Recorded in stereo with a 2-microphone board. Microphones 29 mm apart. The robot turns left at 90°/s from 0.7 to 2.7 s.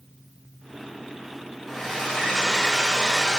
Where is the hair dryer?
5° left (ahead or behind), 0.9 m; by 3.4 s 20° left (ahead or behind), 0.9 m.